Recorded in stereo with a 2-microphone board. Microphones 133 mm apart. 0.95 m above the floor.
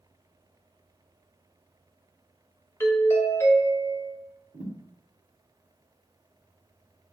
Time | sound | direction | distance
2.8 | a doorbell | 20° left (ahead or behind) | 0.8 m
4.5 | a thud | 60° right (ahead or behind) | 1.2 m